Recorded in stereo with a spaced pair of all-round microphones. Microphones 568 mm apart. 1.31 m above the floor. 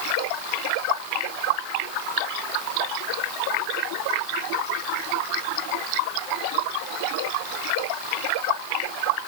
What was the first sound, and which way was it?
Only background noise.